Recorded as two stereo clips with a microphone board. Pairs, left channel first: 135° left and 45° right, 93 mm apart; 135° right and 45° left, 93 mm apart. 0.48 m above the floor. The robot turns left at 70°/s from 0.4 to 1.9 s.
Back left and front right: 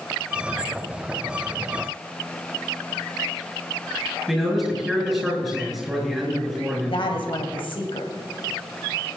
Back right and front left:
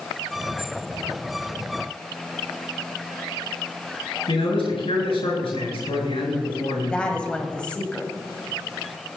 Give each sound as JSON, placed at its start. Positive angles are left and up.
{"t": 4.3, "sound": "a man speaking", "azimuth_deg": -130, "distance_m": 7.5}
{"t": 6.8, "sound": "a woman speaking", "azimuth_deg": 150, "distance_m": 2.5}